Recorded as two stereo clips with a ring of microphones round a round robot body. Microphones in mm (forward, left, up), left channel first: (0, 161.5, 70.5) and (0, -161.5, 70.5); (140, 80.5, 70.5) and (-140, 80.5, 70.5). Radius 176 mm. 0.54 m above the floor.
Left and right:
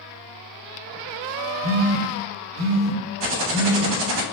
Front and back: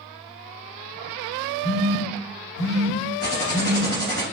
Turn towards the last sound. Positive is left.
turn(degrees=-60)